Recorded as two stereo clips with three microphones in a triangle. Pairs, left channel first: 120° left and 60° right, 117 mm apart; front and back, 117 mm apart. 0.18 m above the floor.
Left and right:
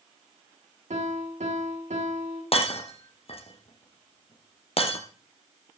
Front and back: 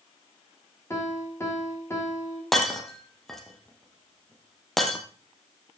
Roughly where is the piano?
Right.